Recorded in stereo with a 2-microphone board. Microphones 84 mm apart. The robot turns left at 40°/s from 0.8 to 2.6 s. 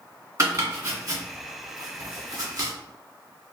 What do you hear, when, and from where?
0.4 s chopping: 40° right (ahead or behind), 1.4 m